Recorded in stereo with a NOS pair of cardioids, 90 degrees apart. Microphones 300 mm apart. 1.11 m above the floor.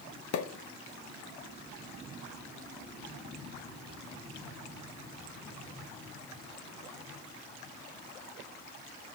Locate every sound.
0.3 s a pop: 60° left, 1.1 m